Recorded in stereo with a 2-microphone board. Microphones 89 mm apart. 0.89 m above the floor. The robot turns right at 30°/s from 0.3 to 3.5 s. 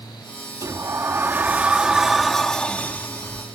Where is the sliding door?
50° right; by 3.5 s 35° left.